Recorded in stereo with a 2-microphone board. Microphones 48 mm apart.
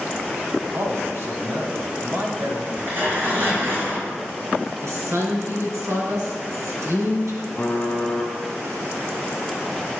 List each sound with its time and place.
0.7 s a man speaking: 55° right (ahead or behind), 2 m
2.7 s tearing paper: 45° right (ahead or behind), 5 m
4.8 s a woman speaking: 75° right (ahead or behind), 3.5 m
7.6 s typing on a keyboard: 20° left (ahead or behind), 2.5 m